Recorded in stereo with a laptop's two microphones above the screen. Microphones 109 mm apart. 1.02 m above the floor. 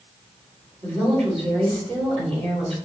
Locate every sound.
0.8 s a woman speaking: 65° right (ahead or behind), 3 m